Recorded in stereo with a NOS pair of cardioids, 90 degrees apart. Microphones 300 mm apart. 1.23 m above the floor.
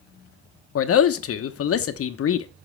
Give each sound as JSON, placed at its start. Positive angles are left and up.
{"t": 0.8, "sound": "a man speaking", "azimuth_deg": 50, "distance_m": 0.9}